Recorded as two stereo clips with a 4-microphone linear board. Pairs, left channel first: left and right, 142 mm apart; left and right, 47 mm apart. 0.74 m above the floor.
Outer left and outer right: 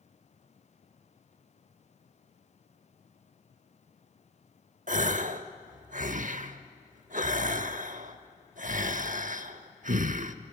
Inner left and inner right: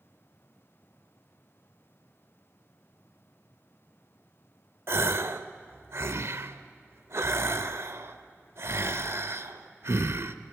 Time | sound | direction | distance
4.9 | a gasp | 65° right (ahead or behind) | 0.9 m